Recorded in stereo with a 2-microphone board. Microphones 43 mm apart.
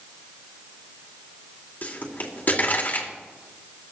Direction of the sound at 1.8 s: 40° left (ahead or behind).